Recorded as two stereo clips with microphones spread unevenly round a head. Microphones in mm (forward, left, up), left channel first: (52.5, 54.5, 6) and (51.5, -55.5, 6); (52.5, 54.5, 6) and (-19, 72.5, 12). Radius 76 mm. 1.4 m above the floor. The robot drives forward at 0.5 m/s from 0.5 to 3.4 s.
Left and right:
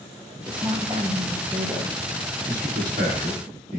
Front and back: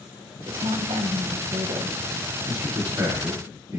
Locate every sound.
0.5 s a woman speaking: 150° right, 0.9 m; by 2.0 s 165° right, 1.6 m
2.5 s a man speaking: 120° right, 3 m; by 3.8 s 125° right, 3.5 m